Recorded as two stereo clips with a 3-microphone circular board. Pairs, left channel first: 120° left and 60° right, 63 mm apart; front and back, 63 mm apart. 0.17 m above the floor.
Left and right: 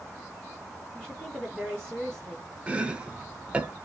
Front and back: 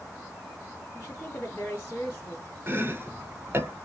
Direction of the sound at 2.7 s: 130° right.